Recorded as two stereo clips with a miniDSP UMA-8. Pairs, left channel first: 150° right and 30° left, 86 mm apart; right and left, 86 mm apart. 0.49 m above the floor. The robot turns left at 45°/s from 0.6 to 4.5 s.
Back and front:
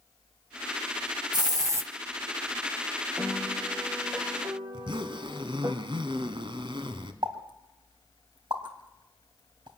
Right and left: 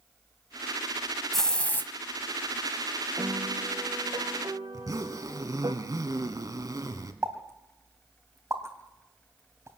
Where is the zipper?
45° left, 1.7 m.